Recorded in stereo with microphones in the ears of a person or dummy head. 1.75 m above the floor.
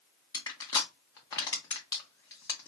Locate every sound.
0.3 s crushing: 20° left (ahead or behind), 1.0 m